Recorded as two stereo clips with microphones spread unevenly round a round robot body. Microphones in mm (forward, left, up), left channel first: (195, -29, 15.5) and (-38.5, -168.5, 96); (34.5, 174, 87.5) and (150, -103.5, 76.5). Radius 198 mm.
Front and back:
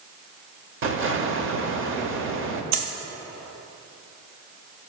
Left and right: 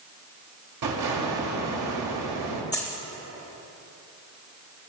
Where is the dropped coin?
155° right, 0.8 m.